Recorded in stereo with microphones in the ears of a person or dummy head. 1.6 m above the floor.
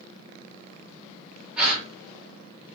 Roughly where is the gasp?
Centre.